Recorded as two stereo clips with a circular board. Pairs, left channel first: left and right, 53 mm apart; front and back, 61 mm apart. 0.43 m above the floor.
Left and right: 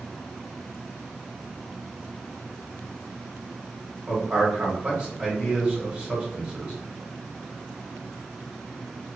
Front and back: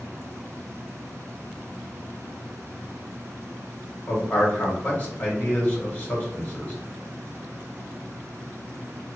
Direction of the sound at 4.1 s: 30° right.